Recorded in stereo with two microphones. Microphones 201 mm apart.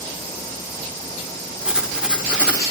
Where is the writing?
5° right (ahead or behind), 1.3 m.